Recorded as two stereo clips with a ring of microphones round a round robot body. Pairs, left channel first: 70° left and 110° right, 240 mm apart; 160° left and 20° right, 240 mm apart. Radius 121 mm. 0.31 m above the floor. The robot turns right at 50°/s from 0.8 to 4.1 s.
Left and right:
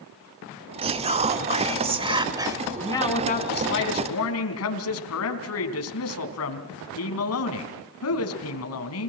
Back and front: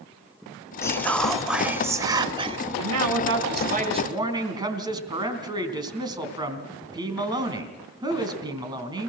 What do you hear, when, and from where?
0.8 s whispering: 140° right, 1.4 m; by 2.6 s 50° right, 1.4 m
2.8 s a man speaking: 15° right, 3.5 m; by 9.1 s 50° left, 3.5 m